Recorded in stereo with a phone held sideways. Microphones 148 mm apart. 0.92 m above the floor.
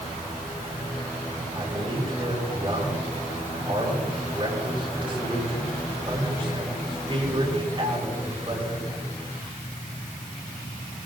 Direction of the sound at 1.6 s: 40° right (ahead or behind).